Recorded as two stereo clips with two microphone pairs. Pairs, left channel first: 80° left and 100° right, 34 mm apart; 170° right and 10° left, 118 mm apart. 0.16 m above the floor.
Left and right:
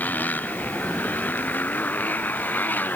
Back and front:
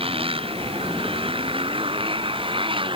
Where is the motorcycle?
50° left; by 3.0 s 55° left.